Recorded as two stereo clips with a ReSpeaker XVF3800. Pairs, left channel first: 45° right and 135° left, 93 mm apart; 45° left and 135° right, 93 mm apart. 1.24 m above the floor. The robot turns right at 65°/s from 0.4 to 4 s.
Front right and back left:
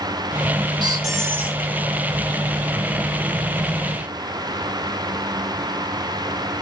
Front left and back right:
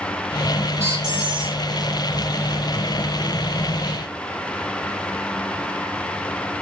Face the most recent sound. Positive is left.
turn(degrees=15)